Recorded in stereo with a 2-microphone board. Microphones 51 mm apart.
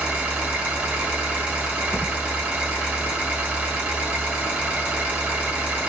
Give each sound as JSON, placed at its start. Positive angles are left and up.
{"t": 0.0, "sound": "an engine running", "side_deg": -25, "distance_m": 1.2}
{"t": 1.9, "sound": "a thud", "side_deg": 40, "distance_m": 0.8}